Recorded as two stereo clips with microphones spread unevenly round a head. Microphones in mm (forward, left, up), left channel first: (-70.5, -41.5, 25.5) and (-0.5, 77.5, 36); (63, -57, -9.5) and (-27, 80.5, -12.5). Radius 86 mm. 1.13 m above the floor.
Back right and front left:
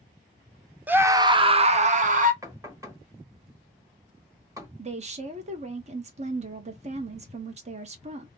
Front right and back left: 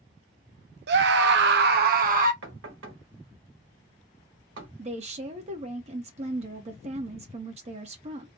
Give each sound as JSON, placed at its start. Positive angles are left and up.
{"t": 0.9, "sound": "a scream", "azimuth_deg": 140, "distance_m": 0.6}
{"t": 2.4, "sound": "knocking", "azimuth_deg": 130, "distance_m": 1.2}
{"t": 4.8, "sound": "a woman speaking", "azimuth_deg": 85, "distance_m": 0.8}